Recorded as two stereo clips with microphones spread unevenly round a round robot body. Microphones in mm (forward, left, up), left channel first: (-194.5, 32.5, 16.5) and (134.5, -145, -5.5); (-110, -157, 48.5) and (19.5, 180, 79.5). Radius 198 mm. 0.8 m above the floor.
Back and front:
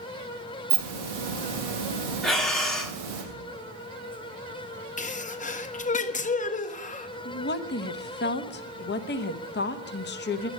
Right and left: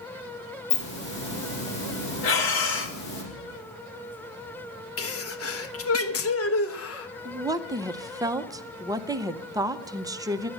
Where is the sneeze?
140° right, 1.3 m.